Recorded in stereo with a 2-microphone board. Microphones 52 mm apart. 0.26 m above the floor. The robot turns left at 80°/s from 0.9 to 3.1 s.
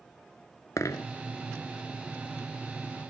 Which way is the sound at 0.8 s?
90° left.